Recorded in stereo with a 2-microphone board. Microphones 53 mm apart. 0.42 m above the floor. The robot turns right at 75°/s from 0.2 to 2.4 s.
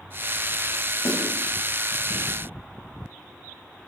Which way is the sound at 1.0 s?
65° left (ahead or behind).